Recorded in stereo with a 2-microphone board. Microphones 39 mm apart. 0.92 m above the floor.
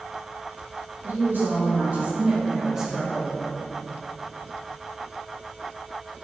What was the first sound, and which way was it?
A woman speaking, 60° right (ahead or behind).